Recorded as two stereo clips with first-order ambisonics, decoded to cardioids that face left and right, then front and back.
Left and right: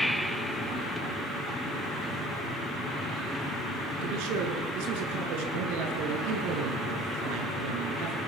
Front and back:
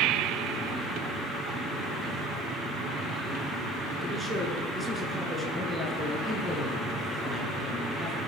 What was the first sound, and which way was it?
A man speaking, 95° right.